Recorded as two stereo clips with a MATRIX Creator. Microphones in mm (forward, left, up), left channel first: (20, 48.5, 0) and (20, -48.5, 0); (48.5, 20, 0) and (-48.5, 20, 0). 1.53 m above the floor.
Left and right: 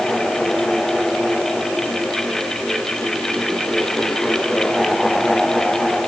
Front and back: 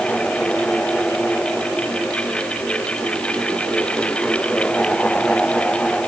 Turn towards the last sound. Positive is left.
No sound to turn to.